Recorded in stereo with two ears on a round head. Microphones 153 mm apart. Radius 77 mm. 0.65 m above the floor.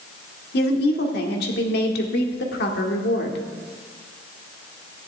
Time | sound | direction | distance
0.5 | a woman speaking | 60° left (ahead or behind) | 1.7 m